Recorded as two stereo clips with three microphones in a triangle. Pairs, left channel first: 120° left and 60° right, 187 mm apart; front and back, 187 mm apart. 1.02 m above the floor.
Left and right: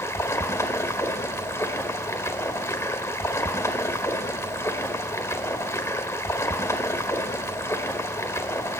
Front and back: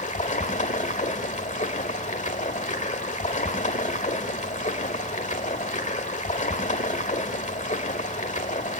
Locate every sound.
0.0 s running water: 45° left, 1.6 m